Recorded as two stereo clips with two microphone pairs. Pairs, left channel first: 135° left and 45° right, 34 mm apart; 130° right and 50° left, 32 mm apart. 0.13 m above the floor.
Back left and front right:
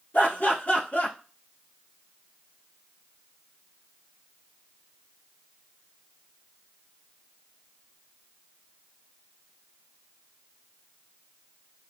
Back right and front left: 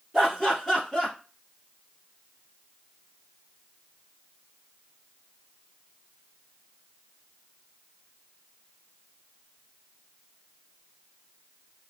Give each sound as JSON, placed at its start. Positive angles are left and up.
{"t": 0.1, "sound": "laughter", "azimuth_deg": 130, "distance_m": 2.0}